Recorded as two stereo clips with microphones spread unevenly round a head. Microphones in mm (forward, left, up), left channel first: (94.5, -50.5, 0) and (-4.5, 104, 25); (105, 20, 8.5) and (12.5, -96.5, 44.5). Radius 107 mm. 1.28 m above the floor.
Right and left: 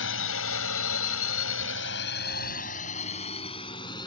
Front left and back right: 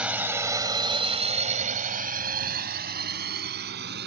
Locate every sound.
0.0 s a drone: 50° right; by 4.1 s 130° right